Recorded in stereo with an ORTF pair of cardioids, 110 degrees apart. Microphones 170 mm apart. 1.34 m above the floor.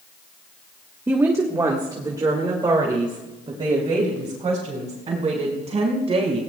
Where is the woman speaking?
15° right, 1.4 m; by 6.4 s 35° right, 5.5 m.